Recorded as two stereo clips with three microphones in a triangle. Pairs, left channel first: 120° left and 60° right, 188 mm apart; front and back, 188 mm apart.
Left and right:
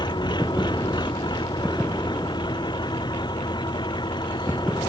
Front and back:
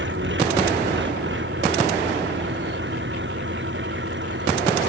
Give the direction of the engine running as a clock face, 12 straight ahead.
6 o'clock.